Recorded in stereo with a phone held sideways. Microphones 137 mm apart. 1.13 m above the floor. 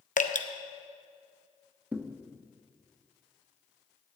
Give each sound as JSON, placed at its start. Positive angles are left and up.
{"t": 0.2, "sound": "dripping", "side_deg": 70, "distance_m": 0.7}
{"t": 1.9, "sound": "a thud", "side_deg": -15, "distance_m": 0.7}